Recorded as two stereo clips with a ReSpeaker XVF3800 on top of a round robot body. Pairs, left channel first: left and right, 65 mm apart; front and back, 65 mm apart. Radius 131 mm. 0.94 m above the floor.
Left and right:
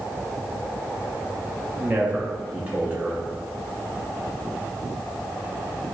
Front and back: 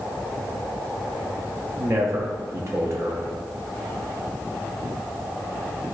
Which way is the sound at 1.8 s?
150° right.